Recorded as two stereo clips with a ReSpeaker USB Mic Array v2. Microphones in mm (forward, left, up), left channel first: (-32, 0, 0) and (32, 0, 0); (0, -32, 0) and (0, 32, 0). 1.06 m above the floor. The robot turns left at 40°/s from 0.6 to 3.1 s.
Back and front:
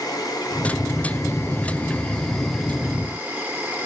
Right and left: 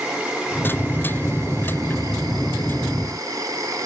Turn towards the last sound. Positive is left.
turn(degrees=65)